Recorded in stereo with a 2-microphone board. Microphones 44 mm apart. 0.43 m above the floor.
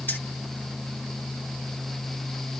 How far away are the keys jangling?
About 1.9 m.